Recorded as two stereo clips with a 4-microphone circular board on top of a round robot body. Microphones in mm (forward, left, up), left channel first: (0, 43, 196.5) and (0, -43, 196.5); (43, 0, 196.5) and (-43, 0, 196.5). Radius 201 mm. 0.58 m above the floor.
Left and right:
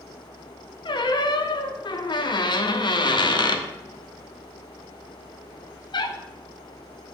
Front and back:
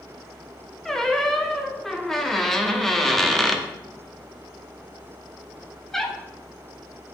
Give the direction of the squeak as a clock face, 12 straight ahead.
9 o'clock.